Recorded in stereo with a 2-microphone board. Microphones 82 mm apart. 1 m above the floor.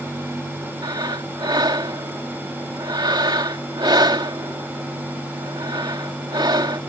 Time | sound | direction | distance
0.8 | breathing | 60° right (ahead or behind) | ?